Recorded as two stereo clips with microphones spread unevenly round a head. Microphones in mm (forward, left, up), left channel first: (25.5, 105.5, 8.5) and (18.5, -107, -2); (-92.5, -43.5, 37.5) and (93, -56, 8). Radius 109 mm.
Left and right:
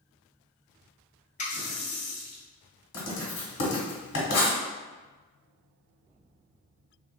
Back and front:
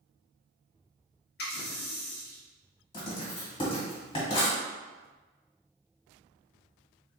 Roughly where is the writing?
Left.